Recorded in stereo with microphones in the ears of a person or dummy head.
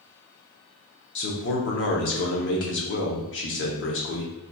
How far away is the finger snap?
No finger snap in this recording.